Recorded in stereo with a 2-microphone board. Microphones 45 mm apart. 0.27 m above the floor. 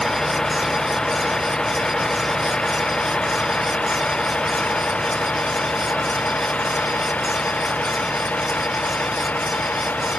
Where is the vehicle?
15° left (ahead or behind); by 10.2 s 35° left (ahead or behind).